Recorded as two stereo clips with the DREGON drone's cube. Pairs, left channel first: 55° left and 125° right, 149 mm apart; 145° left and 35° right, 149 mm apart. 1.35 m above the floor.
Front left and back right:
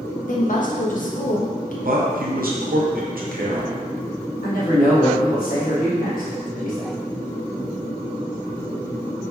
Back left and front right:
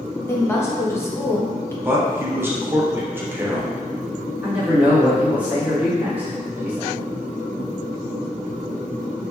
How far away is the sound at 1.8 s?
About 0.7 m.